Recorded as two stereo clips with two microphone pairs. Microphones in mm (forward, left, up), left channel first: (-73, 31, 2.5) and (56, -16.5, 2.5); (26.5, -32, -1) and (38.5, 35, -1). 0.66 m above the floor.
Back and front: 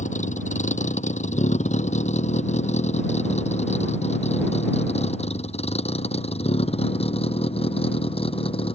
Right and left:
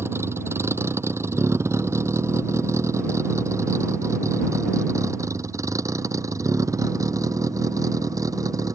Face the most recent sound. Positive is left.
turn(degrees=115)